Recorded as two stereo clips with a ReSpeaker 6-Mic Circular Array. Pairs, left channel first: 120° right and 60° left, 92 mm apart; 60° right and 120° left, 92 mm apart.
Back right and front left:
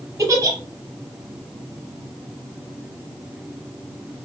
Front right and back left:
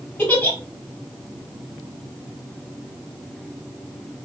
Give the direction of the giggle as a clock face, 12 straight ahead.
12 o'clock.